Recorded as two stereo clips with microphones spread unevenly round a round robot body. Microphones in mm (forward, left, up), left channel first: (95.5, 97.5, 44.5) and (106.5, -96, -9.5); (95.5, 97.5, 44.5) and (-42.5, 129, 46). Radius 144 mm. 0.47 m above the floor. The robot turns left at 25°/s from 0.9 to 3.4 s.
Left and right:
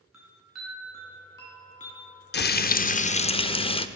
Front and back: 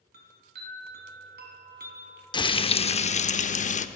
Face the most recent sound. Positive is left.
turn(degrees=20)